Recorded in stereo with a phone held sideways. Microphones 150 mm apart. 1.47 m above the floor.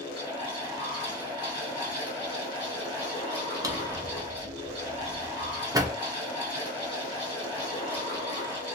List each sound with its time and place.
0.0 s a fan: 30° left (ahead or behind), 1.8 m
3.6 s a drawer: 25° right (ahead or behind), 0.6 m